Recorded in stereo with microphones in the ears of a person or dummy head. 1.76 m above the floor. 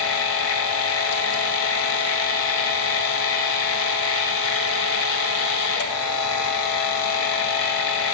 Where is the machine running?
75° left (ahead or behind), 1.0 m.